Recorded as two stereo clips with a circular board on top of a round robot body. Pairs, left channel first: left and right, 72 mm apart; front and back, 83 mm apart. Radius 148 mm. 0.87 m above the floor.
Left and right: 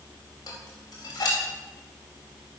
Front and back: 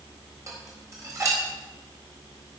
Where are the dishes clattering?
125° left, 4 m.